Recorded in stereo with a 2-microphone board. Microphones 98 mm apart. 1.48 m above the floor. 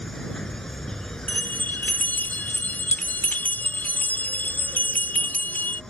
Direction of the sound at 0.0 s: 5° left (ahead or behind).